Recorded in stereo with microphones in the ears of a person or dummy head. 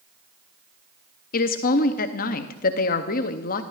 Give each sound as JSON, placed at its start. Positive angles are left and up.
{"t": 1.3, "sound": "a woman speaking", "side_deg": 40, "distance_m": 0.7}